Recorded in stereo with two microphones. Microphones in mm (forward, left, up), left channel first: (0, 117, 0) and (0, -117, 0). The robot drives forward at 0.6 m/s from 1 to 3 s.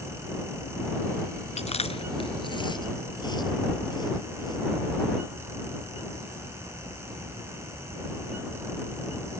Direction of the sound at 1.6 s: 30° left (ahead or behind).